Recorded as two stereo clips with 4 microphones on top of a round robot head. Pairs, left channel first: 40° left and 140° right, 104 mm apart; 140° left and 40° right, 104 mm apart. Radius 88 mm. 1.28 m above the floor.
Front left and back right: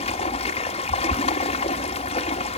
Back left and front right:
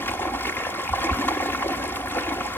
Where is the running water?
70° left, 1.5 m.